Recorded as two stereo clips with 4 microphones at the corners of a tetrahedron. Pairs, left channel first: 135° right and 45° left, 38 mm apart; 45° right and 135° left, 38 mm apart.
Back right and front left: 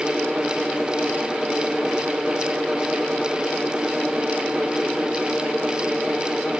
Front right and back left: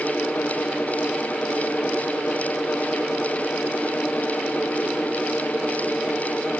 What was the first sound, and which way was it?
Only background noise.